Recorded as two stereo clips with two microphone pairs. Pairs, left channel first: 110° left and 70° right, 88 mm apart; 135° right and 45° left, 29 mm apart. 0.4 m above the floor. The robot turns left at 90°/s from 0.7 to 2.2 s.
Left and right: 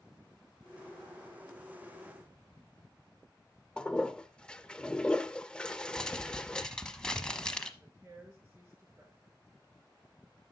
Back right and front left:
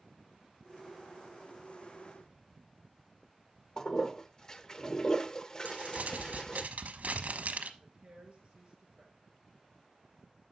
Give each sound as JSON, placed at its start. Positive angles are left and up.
{"t": 3.8, "sound": "a toilet flushing", "azimuth_deg": -175, "distance_m": 0.6}
{"t": 5.7, "sound": "crumpling", "azimuth_deg": 30, "distance_m": 1.0}
{"t": 7.8, "sound": "a woman speaking", "azimuth_deg": -10, "distance_m": 5.0}